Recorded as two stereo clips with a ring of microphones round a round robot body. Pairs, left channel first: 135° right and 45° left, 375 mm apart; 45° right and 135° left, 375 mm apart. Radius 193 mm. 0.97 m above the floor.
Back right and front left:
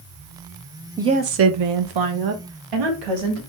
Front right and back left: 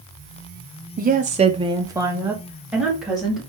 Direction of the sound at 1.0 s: 120° left.